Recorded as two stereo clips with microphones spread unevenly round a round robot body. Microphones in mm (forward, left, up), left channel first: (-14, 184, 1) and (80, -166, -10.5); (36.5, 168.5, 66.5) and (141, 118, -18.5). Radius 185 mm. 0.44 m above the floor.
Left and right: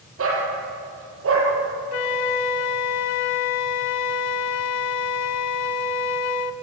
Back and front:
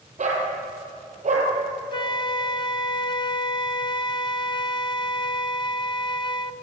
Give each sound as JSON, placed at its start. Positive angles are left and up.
{"t": 0.2, "sound": "a dog barking", "azimuth_deg": -20, "distance_m": 5.5}
{"t": 1.9, "sound": "a flute", "azimuth_deg": 110, "distance_m": 0.8}